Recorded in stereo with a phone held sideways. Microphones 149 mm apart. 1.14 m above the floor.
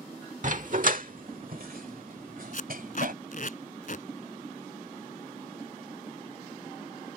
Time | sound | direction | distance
0.4 | a dog barking | 55° right (ahead or behind) | ?
2.5 | tape being pulled | 60° left (ahead or behind) | ?